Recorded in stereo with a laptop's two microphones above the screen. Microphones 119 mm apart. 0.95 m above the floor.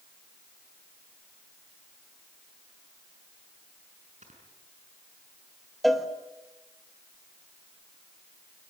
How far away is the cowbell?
About 1.3 m.